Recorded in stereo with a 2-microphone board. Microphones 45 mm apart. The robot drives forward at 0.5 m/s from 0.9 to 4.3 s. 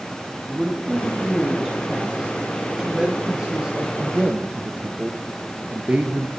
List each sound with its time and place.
0.5 s a man speaking: 10° right (ahead or behind), 2.5 m; by 6.3 s 35° right (ahead or behind), 0.9 m